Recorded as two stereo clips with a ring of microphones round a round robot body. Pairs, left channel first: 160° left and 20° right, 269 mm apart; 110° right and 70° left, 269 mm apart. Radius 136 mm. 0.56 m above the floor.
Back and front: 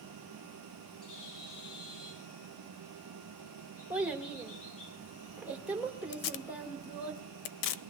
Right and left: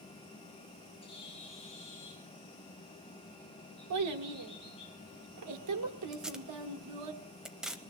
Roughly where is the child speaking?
Ahead left.